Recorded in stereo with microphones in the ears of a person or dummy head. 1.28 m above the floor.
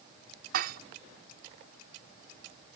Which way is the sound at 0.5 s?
55° right (ahead or behind).